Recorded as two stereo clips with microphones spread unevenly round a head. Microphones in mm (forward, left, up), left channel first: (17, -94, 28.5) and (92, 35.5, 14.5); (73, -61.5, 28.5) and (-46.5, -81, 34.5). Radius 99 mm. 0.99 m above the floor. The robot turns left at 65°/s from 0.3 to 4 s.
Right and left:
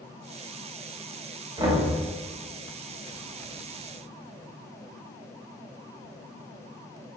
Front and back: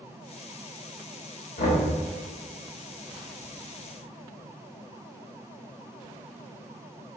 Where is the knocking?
5° left, 2 m; by 1.8 s 15° right, 2 m.